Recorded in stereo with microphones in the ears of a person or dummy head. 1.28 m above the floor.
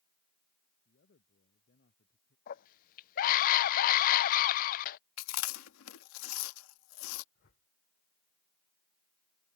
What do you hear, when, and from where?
0.8 s a man speaking: 55° left (ahead or behind); by 2.4 s 50° left (ahead or behind)
2.5 s a scream: 50° left (ahead or behind)
5.2 s chewing: 80° left
7.3 s a whoosh: 55° left (ahead or behind)